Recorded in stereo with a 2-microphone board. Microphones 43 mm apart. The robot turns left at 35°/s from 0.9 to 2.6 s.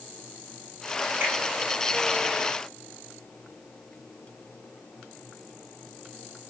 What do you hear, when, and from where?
1.2 s a finger snap: 65° right (ahead or behind), 1.9 m; by 1.4 s 70° right (ahead or behind), 1.9 m